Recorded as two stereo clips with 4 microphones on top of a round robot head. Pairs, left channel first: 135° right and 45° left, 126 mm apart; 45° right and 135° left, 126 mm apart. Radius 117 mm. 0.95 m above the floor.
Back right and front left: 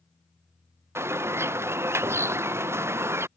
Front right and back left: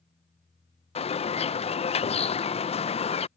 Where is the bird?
20° right.